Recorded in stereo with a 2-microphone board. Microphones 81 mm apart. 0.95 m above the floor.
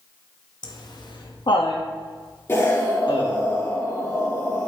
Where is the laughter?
55° left (ahead or behind), 1.2 m; by 3.5 s 60° left (ahead or behind), 2 m.